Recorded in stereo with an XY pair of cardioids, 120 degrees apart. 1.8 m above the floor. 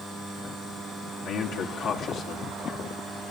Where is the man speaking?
70° left, 2.0 m.